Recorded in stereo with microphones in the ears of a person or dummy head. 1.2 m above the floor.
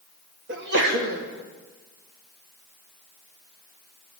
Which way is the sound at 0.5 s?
60° right (ahead or behind).